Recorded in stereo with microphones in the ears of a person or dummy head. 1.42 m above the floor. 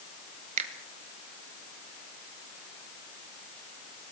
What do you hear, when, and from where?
0.6 s a finger snap: 45° right (ahead or behind), 2 m